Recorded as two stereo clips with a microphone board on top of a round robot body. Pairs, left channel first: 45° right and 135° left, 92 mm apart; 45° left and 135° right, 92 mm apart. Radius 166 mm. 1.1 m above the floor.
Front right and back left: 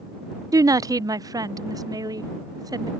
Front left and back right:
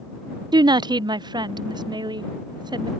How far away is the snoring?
I don't hear snoring.